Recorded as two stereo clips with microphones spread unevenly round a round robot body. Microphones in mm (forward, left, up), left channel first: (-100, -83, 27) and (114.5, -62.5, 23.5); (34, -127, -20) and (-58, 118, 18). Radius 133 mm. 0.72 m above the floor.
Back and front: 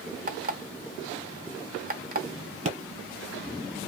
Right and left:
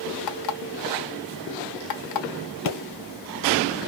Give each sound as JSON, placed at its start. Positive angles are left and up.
{"t": 0.3, "sound": "an alarm clock", "azimuth_deg": -45, "distance_m": 1.1}
{"t": 2.6, "sound": "a pop", "azimuth_deg": -50, "distance_m": 1.9}